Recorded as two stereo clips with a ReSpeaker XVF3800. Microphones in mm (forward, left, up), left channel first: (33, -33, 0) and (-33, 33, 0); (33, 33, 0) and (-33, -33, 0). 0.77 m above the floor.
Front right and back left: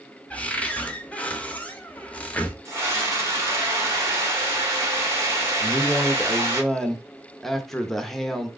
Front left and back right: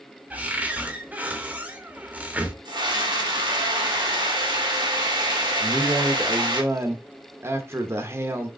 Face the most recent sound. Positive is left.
turn(degrees=-130)